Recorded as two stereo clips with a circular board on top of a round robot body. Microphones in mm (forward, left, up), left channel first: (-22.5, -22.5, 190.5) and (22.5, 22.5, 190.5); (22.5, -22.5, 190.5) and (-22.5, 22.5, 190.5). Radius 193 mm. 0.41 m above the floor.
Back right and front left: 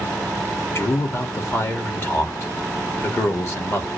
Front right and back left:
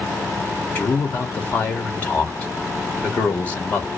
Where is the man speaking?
100° right, 1.9 m.